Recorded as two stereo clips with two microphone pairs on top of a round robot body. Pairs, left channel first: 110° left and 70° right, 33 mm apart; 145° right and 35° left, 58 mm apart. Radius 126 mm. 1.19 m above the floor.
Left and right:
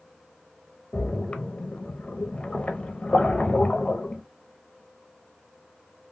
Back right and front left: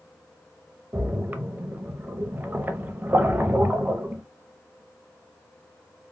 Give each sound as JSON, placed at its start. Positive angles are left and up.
{"t": 0.9, "sound": "a splash", "azimuth_deg": 80, "distance_m": 0.7}